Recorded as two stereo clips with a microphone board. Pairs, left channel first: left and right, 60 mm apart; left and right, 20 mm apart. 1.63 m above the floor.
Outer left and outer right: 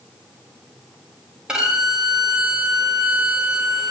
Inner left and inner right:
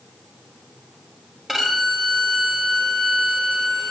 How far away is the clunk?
I don't hear a clunk.